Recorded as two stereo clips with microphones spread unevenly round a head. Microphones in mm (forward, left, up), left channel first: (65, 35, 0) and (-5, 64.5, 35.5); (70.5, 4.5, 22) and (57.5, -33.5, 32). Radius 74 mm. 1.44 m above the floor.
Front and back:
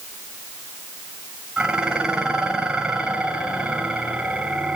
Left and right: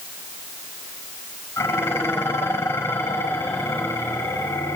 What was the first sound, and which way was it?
Dishes clattering, 75° left.